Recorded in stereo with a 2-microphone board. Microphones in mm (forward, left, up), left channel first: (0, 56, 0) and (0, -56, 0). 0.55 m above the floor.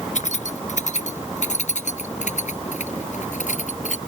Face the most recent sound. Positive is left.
turn(degrees=85)